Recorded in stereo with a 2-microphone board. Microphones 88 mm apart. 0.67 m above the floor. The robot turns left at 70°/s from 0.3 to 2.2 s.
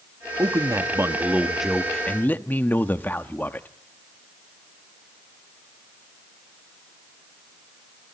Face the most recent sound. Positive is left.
turn(degrees=145)